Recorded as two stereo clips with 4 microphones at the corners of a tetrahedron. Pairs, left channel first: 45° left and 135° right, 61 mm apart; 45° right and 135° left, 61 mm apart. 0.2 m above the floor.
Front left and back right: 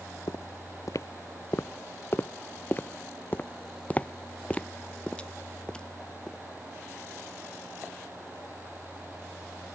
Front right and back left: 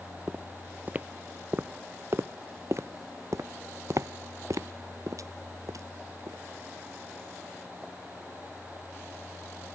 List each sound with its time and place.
0.3 s footsteps: 60° left; by 6.4 s 120° left